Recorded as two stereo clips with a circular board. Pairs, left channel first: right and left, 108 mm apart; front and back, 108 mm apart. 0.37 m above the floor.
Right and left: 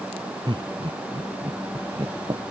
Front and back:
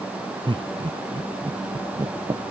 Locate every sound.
0.5 s laughter: 140° left